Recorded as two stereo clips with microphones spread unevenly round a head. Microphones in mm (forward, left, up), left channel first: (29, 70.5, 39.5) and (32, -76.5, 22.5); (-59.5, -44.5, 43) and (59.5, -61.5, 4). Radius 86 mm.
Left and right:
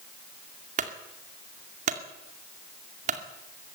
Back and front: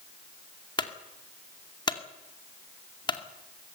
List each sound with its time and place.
0.8 s a clunk: 135° right, 2.5 m